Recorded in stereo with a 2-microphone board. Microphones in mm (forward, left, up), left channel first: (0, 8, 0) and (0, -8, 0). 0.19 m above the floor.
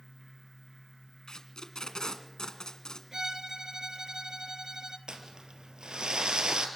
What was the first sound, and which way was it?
Tape being pulled, 50° left (ahead or behind).